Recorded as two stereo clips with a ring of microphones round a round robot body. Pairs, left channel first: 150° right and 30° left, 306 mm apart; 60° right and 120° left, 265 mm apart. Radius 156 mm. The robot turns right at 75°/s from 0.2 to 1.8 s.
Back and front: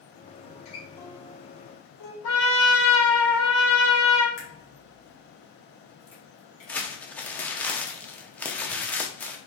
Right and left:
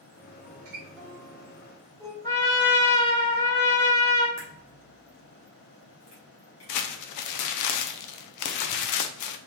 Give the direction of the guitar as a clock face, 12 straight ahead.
8 o'clock.